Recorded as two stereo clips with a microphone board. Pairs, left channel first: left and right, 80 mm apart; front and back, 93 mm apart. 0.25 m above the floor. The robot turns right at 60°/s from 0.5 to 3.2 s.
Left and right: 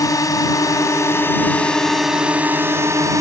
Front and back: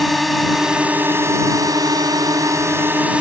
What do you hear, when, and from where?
0.0 s a drone: 90° left; by 3.2 s 105° right